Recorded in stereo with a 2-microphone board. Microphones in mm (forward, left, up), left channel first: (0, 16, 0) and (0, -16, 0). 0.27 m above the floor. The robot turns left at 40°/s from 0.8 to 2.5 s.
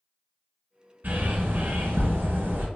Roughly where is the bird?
Ahead right.